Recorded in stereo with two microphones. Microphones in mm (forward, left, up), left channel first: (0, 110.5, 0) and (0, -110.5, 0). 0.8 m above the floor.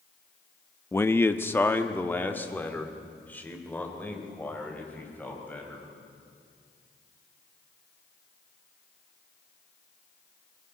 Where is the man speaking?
10° left (ahead or behind), 0.6 m.